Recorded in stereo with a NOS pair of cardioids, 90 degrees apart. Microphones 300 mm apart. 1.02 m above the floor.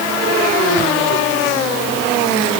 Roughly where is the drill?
No drill in this recording.